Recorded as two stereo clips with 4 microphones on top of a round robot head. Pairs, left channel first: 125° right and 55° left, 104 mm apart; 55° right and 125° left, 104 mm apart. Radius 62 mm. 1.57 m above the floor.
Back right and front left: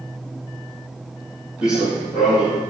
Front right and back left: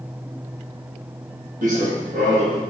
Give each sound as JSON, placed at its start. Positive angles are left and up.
{"t": 1.6, "sound": "running footsteps", "azimuth_deg": 135, "distance_m": 4.0}